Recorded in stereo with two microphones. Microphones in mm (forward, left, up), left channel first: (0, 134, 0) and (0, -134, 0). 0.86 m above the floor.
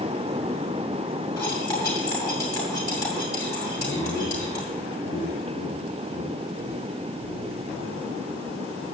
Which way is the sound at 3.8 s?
70° left (ahead or behind).